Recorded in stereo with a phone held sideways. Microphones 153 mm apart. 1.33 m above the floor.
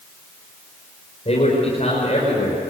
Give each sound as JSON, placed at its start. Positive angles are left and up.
{"t": 1.2, "sound": "a man speaking", "side_deg": 45, "distance_m": 5.5}